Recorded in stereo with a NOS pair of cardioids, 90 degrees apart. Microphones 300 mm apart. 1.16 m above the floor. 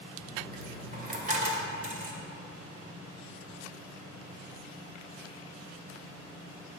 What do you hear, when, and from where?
0.2 s a dropped coin: 30° right, 1.9 m